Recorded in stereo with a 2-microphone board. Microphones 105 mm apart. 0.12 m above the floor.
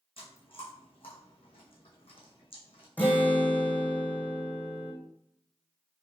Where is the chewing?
60° left (ahead or behind), 1.7 m.